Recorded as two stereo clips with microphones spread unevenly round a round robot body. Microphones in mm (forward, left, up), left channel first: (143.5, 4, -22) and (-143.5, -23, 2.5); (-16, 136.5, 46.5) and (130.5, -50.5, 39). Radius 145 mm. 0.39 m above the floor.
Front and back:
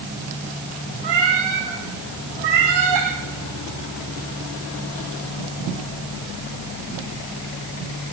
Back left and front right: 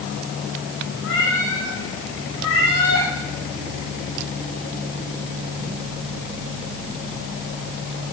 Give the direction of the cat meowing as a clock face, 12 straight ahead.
6 o'clock.